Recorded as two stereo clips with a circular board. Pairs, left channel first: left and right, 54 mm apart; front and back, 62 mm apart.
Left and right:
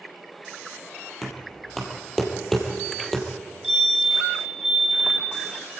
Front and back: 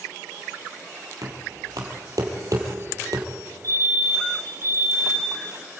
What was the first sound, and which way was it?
Knocking, 175° left.